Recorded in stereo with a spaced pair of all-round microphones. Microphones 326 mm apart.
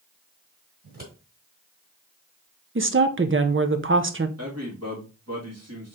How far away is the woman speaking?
About 0.6 m.